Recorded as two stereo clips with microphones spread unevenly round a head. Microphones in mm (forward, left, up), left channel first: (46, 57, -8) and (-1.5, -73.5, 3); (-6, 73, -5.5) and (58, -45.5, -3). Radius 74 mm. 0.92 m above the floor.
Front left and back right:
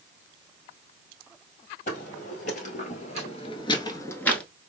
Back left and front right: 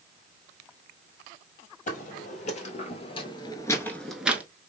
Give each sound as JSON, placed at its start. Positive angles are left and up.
{"t": 1.9, "sound": "footsteps", "azimuth_deg": 105, "distance_m": 1.8}